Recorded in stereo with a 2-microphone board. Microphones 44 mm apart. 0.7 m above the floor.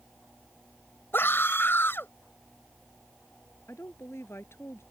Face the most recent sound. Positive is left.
turn(degrees=75)  # may be behind; listen again after turning